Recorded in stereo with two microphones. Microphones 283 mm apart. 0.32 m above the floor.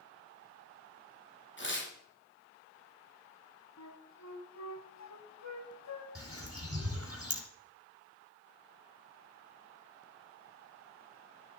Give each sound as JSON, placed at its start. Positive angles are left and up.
{"t": 1.6, "sound": "tearing paper", "side_deg": 40, "distance_m": 2.5}
{"t": 3.8, "sound": "a flute", "side_deg": 70, "distance_m": 1.2}
{"t": 6.2, "sound": "a bird", "side_deg": -55, "distance_m": 2.5}